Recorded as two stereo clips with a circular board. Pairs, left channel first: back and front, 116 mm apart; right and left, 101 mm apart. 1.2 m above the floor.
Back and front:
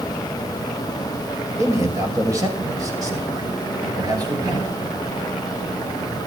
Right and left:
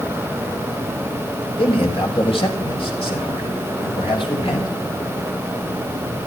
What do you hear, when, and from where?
1.6 s a man speaking: 65° right, 6 m; by 4.7 s 60° right, 7.5 m